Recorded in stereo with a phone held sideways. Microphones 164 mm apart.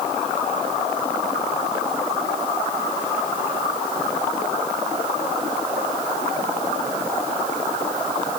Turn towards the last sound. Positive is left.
No sound to turn to.